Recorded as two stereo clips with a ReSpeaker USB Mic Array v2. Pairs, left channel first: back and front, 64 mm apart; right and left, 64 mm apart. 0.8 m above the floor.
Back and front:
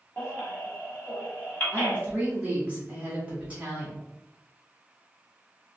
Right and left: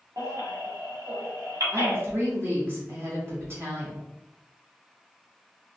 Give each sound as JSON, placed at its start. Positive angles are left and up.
{"t": 0.2, "sound": "a baby crying", "azimuth_deg": 120, "distance_m": 1.3}
{"t": 1.7, "sound": "a woman speaking", "azimuth_deg": 60, "distance_m": 1.3}